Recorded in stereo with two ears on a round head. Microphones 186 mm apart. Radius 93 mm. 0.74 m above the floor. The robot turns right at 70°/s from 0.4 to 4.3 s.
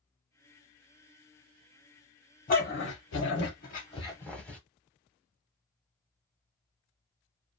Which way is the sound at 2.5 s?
40° left (ahead or behind).